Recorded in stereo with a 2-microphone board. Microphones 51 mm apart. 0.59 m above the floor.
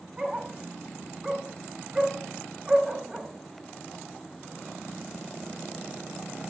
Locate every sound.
0.2 s a dog barking: 10° right (ahead or behind), 1.4 m